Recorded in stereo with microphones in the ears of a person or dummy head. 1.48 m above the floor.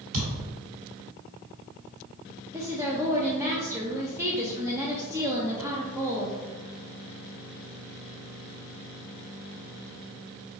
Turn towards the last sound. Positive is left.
turn(degrees=-15)  # may be behind; listen again after turning